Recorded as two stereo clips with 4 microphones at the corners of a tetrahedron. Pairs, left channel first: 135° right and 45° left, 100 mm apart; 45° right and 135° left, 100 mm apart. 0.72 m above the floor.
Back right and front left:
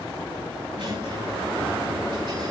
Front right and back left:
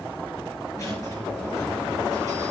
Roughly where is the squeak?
Ahead.